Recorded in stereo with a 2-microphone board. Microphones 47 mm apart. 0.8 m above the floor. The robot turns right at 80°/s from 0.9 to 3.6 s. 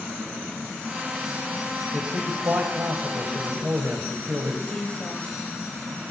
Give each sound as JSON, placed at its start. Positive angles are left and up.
{"t": 1.9, "sound": "a man speaking", "azimuth_deg": -170, "distance_m": 3.5}
{"t": 4.7, "sound": "a woman speaking", "side_deg": 30, "distance_m": 4.0}